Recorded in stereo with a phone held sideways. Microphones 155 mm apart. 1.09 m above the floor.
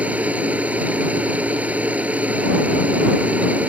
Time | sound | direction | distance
0.0 | a machine running | 10° right (ahead or behind) | ?